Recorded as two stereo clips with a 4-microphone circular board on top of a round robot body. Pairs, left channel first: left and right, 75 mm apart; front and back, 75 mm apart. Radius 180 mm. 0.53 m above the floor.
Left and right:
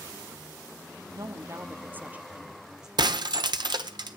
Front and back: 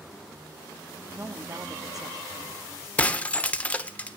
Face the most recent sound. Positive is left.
turn(degrees=-75)